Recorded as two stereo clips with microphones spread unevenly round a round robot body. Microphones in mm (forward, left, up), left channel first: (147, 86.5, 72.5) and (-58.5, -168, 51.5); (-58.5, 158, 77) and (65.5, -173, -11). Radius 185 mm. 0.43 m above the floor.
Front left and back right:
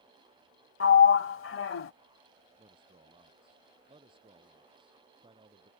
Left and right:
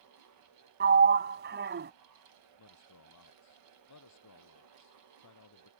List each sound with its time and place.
0.8 s a sliding door: 5° right
2.6 s a man speaking: 155° left